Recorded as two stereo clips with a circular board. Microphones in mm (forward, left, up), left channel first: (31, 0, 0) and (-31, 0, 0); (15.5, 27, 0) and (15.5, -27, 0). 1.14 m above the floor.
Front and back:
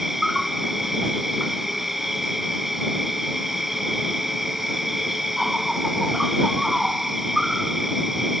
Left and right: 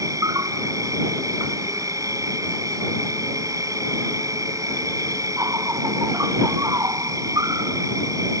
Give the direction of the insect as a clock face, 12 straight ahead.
3 o'clock.